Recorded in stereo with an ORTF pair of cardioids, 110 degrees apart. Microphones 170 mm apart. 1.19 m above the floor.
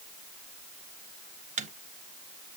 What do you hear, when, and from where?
1.6 s a microwave: 45° right, 0.7 m